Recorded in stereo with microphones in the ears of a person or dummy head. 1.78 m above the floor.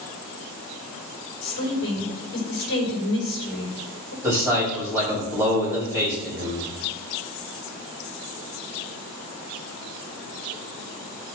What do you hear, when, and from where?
1.4 s a woman speaking: 50° left (ahead or behind), 5 m
4.2 s a man speaking: 5° right (ahead or behind), 5.5 m